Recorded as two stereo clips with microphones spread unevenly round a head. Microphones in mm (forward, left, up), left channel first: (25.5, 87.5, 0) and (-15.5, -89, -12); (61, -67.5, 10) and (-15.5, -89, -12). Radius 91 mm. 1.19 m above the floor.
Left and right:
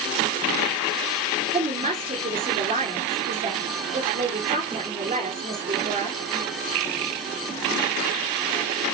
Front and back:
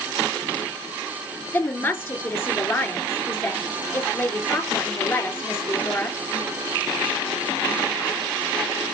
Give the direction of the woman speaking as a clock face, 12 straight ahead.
1 o'clock.